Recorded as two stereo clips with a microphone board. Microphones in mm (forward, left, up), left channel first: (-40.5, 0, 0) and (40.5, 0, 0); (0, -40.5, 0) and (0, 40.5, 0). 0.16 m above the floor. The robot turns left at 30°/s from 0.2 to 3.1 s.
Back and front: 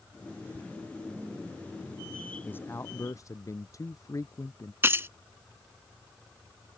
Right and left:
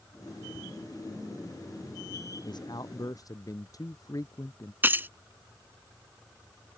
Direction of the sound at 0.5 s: 5° right.